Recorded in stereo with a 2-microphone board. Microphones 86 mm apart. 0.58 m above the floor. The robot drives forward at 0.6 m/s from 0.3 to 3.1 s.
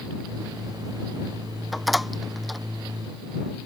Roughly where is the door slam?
Centre.